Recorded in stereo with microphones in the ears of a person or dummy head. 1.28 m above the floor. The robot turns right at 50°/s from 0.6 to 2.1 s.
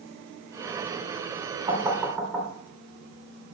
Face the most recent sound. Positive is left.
turn(degrees=0)  # may be behind; listen again after turning